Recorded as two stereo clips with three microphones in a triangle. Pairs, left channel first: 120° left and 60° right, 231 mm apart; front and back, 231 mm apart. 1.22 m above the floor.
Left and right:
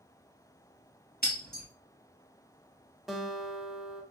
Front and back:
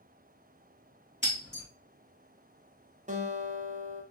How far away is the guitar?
About 0.6 m.